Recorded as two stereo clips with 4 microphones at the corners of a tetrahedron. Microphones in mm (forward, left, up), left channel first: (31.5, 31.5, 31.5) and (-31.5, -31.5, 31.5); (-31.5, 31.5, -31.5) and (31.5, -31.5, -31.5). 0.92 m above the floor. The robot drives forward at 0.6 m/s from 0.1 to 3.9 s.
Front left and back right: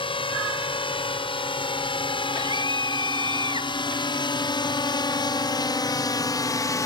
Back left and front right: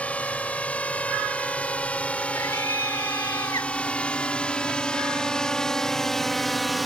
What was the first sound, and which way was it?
A drone, 60° left.